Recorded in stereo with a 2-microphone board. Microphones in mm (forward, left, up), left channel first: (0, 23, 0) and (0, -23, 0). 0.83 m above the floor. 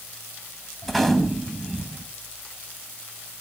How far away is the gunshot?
About 2 m.